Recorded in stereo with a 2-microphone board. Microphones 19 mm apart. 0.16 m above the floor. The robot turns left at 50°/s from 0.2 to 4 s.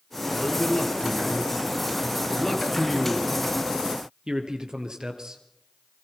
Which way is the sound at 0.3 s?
35° left (ahead or behind).